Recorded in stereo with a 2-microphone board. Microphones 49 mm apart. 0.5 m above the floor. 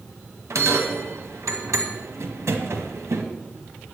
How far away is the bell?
About 1.6 m.